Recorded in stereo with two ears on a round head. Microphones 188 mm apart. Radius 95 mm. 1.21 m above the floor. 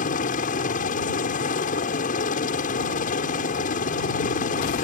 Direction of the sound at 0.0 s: 40° left (ahead or behind).